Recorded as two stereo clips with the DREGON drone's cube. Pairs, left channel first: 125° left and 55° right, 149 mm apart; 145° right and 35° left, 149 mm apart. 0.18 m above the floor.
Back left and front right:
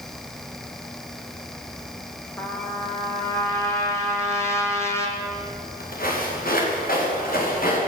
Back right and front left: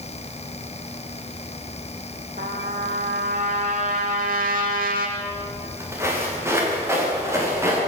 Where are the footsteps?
110° left, 8.5 m; by 7.8 s 105° left, 10.5 m.